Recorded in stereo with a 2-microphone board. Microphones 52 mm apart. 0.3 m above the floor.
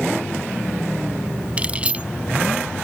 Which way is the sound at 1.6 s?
25° right (ahead or behind).